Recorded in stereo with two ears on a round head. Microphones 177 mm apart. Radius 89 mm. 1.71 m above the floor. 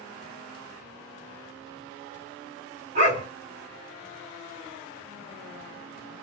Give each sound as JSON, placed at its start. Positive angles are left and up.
{"t": 3.0, "sound": "a dog barking", "side_deg": -40, "distance_m": 2.0}